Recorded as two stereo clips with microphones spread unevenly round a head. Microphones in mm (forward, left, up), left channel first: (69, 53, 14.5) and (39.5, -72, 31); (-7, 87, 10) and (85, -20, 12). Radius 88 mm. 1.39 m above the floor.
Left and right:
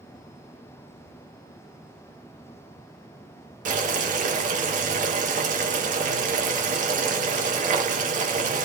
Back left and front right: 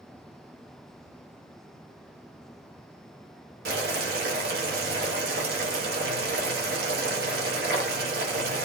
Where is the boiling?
80° right, 0.8 m.